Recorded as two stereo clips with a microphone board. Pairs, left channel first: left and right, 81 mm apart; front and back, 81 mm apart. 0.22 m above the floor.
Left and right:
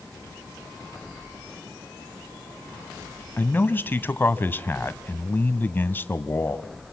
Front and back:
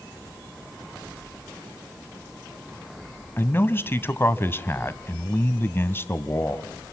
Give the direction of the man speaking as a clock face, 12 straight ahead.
11 o'clock.